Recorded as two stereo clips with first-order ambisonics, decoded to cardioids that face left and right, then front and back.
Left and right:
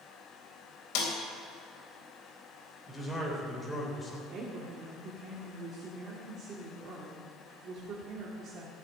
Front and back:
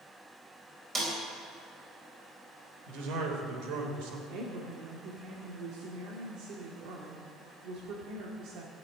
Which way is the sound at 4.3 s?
145° right.